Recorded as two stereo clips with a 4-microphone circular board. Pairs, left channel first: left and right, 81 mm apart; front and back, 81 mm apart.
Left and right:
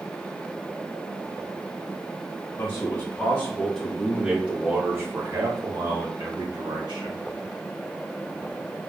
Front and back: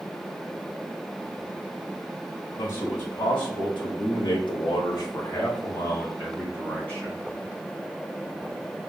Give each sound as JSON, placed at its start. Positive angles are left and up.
{"t": 2.6, "sound": "a man speaking", "azimuth_deg": 35, "distance_m": 1.3}